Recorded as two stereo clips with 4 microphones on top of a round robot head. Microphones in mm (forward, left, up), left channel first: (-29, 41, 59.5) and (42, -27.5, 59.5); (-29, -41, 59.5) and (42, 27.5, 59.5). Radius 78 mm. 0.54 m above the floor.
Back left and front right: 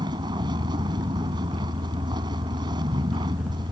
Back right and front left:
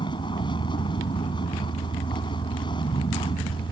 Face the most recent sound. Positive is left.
turn(degrees=-95)